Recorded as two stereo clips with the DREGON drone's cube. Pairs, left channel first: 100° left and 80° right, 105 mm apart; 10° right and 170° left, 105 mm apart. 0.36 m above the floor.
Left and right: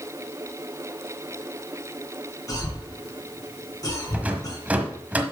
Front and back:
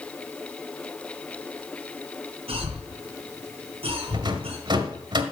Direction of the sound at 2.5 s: 155° left.